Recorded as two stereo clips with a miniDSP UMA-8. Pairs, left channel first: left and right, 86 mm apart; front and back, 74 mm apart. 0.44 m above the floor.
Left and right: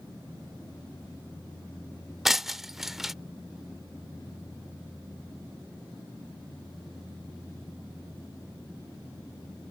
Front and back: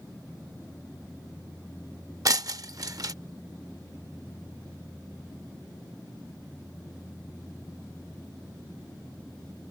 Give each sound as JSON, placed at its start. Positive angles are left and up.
{"t": 2.2, "sound": "breaking glass", "azimuth_deg": -175}